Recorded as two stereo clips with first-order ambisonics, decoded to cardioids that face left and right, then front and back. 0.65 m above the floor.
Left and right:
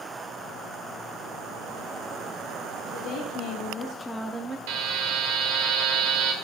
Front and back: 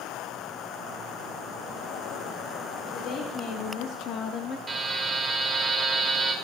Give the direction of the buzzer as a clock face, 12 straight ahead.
3 o'clock.